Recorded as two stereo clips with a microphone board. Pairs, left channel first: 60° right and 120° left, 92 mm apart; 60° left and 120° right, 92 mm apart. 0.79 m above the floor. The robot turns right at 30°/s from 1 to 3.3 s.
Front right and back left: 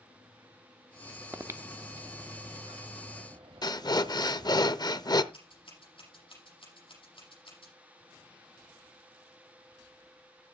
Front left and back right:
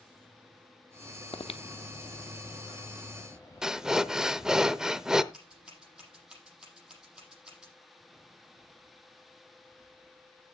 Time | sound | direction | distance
1.3 | breathing | 55° left | 0.7 m
3.6 | breathing | 40° right | 0.6 m
5.3 | scissors | 40° right | 7.5 m